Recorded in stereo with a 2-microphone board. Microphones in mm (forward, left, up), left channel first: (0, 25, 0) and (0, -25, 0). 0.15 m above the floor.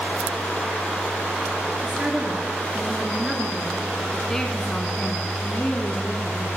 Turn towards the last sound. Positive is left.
turn(degrees=40)  # may be behind; listen again after turning